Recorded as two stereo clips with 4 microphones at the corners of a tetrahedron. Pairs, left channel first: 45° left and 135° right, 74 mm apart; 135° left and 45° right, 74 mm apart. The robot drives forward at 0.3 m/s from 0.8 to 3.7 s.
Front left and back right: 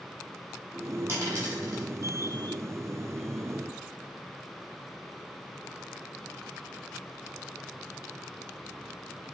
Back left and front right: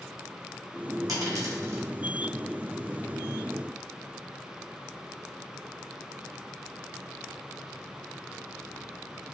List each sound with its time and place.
1.1 s a dropped coin: 85° right, 1.2 m; by 1.8 s 95° right, 1.1 m